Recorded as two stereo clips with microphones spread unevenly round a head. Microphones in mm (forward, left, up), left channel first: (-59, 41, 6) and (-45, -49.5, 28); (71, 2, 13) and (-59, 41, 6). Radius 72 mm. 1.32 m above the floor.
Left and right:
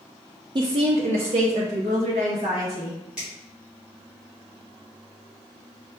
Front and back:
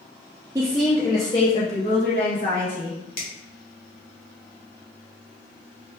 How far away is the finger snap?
About 1.7 m.